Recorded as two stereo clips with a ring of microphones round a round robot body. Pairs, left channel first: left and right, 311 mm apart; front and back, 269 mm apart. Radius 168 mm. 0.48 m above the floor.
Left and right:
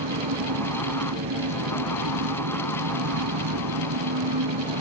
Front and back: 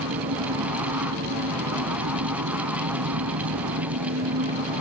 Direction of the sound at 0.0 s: 130° right.